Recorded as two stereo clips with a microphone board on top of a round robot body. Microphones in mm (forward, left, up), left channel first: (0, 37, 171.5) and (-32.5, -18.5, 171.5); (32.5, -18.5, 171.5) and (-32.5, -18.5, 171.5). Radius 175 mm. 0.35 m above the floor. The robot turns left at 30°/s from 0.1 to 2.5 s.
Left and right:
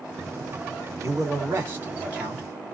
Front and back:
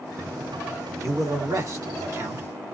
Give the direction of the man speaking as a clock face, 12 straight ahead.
5 o'clock.